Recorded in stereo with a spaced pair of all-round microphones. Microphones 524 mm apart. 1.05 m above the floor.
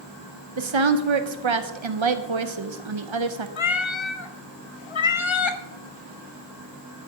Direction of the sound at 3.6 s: 65° left (ahead or behind).